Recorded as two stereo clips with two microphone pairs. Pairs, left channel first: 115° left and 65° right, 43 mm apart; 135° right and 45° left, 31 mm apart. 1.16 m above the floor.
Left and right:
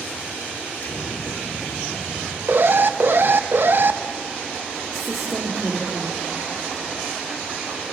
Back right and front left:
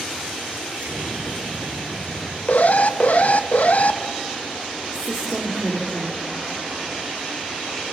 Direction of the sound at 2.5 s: 100° right.